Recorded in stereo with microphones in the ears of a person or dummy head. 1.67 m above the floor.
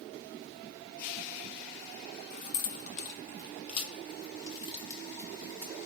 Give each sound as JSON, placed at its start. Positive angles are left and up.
{"t": 2.3, "sound": "keys jangling", "side_deg": 55, "distance_m": 1.7}